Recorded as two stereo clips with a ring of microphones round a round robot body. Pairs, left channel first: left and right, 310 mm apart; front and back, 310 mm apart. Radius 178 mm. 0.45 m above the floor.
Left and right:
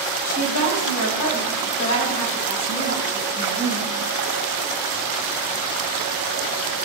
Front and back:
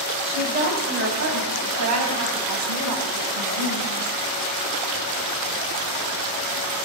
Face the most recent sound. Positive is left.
turn(degrees=155)